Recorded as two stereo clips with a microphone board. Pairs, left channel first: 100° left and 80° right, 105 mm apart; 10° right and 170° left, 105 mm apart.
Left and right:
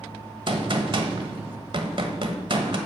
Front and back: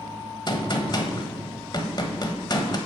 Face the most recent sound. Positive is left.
turn(degrees=-50)